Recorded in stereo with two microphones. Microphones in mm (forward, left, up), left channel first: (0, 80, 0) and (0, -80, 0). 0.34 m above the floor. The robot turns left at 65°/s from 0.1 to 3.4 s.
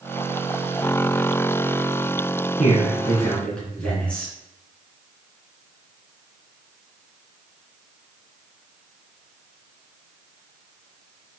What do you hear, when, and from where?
2.6 s a man speaking: 60° left, 3 m; by 4.3 s 5° left, 3 m